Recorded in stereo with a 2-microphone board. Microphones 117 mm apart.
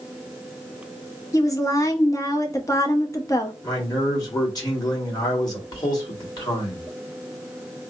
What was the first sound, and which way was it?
A woman speaking, 30° left (ahead or behind).